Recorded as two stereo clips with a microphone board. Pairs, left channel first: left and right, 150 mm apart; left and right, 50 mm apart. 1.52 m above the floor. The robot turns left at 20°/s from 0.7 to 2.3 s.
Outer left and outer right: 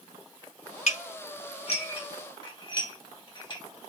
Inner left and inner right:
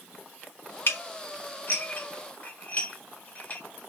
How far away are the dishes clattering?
About 1.4 m.